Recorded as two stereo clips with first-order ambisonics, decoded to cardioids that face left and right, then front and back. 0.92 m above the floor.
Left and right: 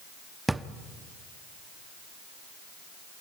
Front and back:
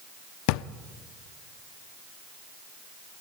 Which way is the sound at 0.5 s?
5° right.